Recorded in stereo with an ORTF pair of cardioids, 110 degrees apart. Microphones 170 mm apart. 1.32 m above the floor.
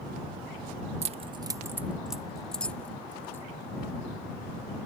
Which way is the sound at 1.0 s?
40° right.